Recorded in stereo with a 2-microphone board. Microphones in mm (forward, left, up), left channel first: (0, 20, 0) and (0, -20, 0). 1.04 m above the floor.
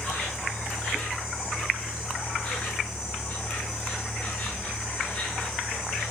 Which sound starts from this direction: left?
An insect, at 0.0 s.